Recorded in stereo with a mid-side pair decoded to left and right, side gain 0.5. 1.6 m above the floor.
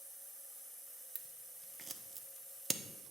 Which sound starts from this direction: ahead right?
Scissors, at 1.1 s.